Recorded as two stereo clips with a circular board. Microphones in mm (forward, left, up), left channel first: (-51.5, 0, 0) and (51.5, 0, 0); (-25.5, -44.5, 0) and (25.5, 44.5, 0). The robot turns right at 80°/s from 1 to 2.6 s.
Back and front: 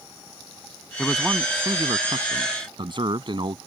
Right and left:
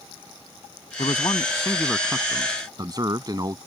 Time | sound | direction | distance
1.0 | a man speaking | 110° right | ?